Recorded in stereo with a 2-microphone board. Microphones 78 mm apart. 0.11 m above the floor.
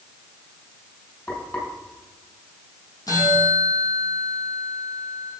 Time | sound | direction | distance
1.3 | frying | 30° left (ahead or behind) | 4.5 m
3.1 | a bell | 50° left (ahead or behind) | 3 m